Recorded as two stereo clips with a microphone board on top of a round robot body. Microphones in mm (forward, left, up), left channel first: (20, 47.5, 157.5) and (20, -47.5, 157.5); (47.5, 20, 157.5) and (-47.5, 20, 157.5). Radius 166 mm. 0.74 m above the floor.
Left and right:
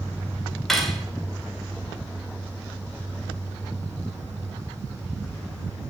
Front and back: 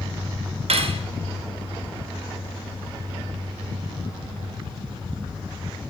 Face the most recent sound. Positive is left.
turn(degrees=175)